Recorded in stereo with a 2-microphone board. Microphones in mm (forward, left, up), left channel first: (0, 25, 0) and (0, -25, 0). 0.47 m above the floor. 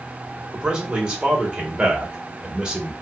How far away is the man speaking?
About 1.2 m.